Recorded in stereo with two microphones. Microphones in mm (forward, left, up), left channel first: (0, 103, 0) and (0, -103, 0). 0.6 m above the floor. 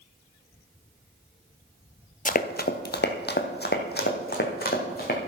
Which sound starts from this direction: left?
Running footsteps, at 2.2 s.